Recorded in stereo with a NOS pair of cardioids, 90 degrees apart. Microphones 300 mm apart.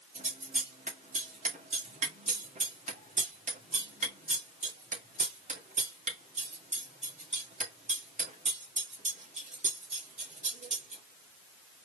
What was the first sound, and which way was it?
Scissors, 25° right.